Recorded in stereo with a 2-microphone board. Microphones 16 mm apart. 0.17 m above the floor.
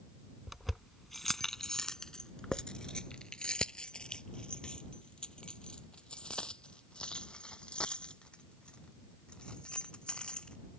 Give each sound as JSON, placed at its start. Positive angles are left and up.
{"t": 0.5, "sound": "keys jangling", "side_deg": -5}